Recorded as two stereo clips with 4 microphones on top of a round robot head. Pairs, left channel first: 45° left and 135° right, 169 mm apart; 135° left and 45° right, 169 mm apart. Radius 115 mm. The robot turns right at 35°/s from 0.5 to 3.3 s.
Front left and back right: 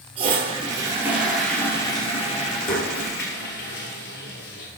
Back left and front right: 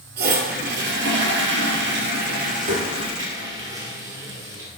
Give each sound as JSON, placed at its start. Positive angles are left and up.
{"t": 0.2, "sound": "a toilet flushing", "azimuth_deg": -75, "distance_m": 1.7}